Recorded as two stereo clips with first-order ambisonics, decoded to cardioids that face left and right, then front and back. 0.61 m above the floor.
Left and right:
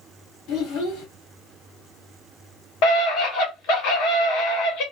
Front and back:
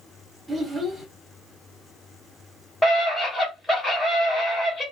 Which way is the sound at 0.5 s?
95° left.